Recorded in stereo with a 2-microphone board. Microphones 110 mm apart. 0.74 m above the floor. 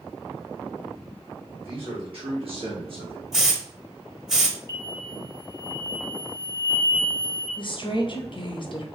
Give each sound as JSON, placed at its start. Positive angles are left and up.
{"t": 1.6, "sound": "a man speaking", "side_deg": -55, "distance_m": 1.8}
{"t": 3.3, "sound": "a hiss", "side_deg": -5, "distance_m": 0.6}
{"t": 4.7, "sound": "an explosion", "side_deg": 20, "distance_m": 1.7}
{"t": 7.6, "sound": "a woman speaking", "side_deg": 50, "distance_m": 0.6}